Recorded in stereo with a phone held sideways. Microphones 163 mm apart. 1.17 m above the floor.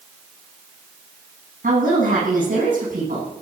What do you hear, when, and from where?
1.6 s a woman speaking: 55° right (ahead or behind), 9.5 m